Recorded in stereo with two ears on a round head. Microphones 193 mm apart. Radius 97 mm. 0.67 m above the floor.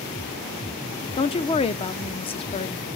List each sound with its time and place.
1.2 s a woman speaking: 25° left (ahead or behind), 0.9 m